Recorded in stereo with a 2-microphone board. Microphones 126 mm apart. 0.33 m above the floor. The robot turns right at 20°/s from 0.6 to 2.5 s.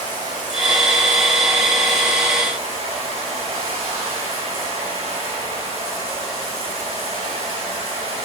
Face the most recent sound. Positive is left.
turn(degrees=-50)